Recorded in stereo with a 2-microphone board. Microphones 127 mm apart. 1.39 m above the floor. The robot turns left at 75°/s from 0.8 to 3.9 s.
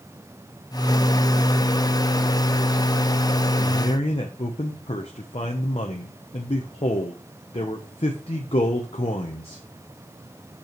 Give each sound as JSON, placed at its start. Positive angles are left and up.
{"t": 3.6, "sound": "a man speaking", "side_deg": 30, "distance_m": 1.0}